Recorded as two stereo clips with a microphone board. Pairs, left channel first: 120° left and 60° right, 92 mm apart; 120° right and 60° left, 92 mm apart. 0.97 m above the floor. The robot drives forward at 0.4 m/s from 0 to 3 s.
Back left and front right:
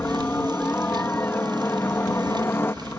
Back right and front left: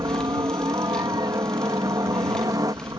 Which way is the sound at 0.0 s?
60° left.